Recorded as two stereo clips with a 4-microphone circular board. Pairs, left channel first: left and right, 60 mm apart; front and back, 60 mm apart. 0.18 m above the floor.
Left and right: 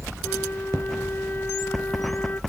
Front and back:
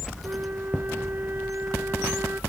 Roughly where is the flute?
Behind left.